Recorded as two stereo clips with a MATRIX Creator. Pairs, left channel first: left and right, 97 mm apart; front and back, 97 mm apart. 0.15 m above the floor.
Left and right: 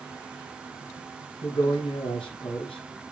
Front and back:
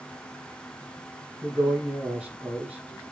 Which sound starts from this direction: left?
A man speaking, at 1.4 s.